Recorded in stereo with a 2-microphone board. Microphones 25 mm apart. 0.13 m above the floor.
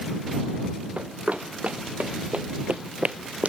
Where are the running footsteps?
80° right; by 3.5 s 60° right (ahead or behind).